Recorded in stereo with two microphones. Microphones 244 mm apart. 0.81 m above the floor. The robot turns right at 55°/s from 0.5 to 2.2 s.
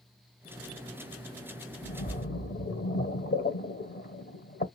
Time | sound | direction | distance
1.8 | a splash | 25° left (ahead or behind) | 1.3 m